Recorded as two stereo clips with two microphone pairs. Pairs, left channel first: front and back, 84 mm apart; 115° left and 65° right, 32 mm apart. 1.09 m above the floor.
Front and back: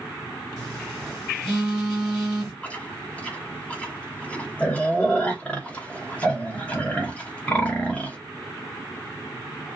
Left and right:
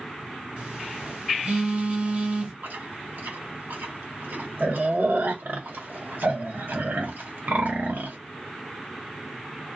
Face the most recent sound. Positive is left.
turn(degrees=-75)